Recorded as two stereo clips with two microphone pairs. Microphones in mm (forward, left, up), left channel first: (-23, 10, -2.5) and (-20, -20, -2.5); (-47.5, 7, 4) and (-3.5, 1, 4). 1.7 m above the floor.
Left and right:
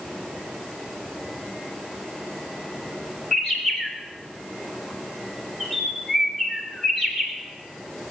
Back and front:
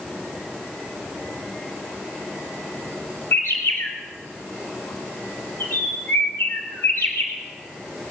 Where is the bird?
165° left, 3 m.